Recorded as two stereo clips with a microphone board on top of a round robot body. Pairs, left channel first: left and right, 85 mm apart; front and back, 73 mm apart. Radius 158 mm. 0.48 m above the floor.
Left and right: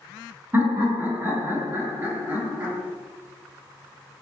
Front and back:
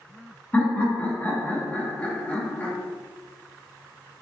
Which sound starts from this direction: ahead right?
Laughter, at 0.5 s.